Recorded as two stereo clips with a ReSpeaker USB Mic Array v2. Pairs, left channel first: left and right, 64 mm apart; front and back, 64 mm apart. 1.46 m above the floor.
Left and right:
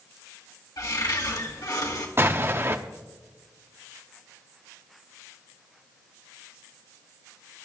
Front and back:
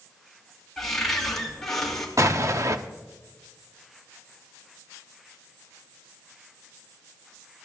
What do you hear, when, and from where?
0.8 s a cupboard door: 85° left, 2.5 m
2.2 s an explosion: 140° right, 0.8 m